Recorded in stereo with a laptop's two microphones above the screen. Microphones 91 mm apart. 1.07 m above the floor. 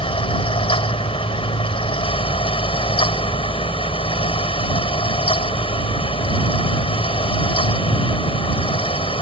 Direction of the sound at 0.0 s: 80° left.